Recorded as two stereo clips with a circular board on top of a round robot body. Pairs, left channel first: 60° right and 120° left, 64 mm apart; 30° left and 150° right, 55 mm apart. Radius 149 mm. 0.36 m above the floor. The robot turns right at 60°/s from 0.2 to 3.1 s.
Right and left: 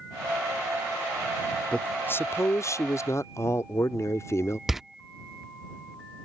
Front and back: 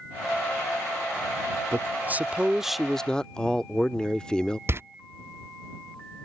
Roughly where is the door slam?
Behind right.